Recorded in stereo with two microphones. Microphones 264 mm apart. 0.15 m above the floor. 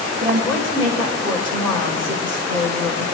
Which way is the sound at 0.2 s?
65° right (ahead or behind).